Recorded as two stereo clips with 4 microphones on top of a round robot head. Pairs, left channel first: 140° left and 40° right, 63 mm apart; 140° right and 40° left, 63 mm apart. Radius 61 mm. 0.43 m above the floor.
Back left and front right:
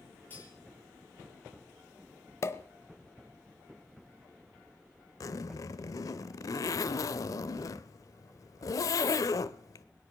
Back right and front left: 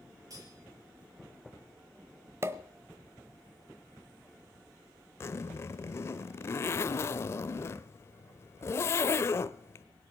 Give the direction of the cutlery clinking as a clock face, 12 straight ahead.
9 o'clock.